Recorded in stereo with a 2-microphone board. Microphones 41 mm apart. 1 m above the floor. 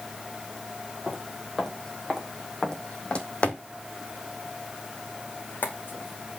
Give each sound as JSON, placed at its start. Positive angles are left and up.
{"t": 1.1, "sound": "footsteps", "side_deg": 0, "distance_m": 2.0}